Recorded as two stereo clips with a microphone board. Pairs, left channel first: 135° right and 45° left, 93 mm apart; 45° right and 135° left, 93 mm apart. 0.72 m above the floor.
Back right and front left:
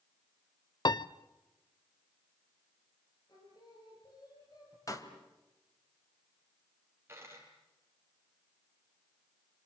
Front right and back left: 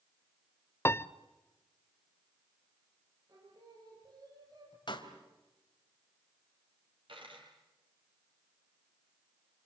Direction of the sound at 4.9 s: 80° right.